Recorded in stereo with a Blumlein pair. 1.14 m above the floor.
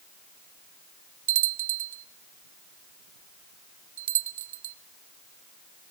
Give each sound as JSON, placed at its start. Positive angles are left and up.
{"t": 1.3, "sound": "a bell", "azimuth_deg": -55, "distance_m": 0.6}